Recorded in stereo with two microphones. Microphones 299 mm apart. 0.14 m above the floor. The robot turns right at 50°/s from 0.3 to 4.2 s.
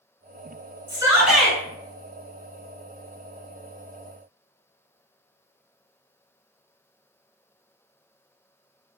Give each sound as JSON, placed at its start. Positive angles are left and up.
{"t": 0.9, "sound": "a shout", "azimuth_deg": -25, "distance_m": 1.6}